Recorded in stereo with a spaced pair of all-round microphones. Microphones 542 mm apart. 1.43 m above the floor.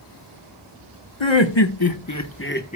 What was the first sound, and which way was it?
Laughter, 65° left (ahead or behind).